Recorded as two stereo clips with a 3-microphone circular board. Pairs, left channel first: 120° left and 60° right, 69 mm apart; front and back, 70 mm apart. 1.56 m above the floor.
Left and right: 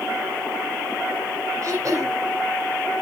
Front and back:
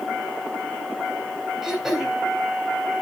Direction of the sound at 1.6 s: 95° right.